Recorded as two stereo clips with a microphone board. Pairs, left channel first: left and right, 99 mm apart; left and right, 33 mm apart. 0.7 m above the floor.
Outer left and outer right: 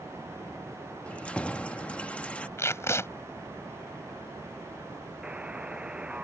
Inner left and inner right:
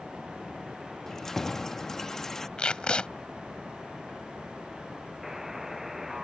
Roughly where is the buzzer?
Centre.